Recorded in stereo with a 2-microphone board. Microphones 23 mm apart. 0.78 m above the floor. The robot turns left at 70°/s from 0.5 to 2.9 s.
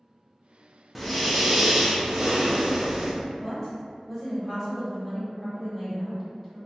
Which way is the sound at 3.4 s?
5° left (ahead or behind).